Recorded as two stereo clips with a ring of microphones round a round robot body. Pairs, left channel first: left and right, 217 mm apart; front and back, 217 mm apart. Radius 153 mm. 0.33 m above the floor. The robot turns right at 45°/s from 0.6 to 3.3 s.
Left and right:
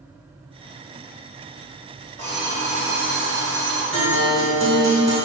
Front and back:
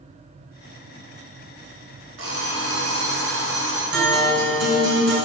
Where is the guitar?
Straight behind, 2 m.